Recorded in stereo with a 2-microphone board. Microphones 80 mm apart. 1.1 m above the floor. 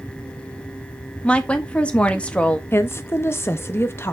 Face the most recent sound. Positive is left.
turn(degrees=30)  # may be behind; listen again after turning